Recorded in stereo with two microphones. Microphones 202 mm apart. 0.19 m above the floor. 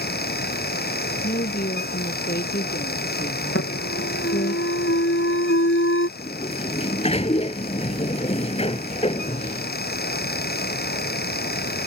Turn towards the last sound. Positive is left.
turn(degrees=30)  # may be behind; listen again after turning